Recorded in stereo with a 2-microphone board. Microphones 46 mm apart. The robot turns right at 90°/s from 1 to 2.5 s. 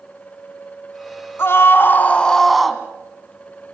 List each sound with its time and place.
1.4 s a scream: 80° left, 2.5 m; by 2.8 s straight behind, 2.5 m